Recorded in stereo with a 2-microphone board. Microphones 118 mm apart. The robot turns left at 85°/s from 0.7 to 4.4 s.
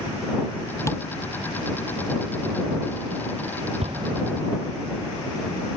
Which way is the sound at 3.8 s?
115° right.